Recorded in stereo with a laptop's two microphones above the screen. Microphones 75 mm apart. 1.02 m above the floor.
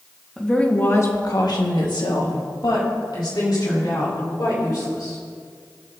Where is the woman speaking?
10° left (ahead or behind), 1.7 m; by 5.2 s 60° left (ahead or behind), 6 m.